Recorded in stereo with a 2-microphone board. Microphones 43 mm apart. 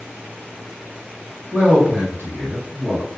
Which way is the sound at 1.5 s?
25° right (ahead or behind).